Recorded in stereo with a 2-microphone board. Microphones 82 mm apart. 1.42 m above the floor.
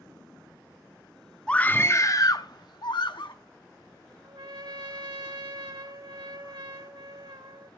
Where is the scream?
10° left (ahead or behind), 0.7 m; by 3.3 s 70° left (ahead or behind), 1.4 m.